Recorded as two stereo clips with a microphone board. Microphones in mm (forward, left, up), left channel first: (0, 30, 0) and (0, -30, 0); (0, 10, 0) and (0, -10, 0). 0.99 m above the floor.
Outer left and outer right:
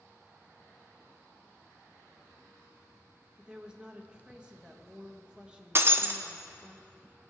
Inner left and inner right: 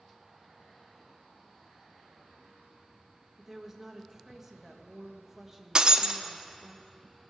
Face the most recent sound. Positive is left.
turn(degrees=-40)  # may be behind; listen again after turning